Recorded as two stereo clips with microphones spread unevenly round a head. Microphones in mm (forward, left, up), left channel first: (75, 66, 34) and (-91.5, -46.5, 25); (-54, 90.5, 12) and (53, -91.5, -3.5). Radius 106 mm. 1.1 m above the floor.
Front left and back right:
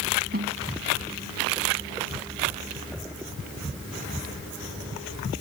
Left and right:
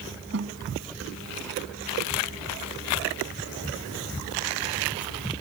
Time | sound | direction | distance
0.3 | a snare drum | 95° right | ?